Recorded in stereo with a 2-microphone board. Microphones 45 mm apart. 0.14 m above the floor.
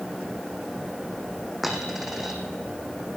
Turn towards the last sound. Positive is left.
turn(degrees=-10)  # may be behind; listen again after turning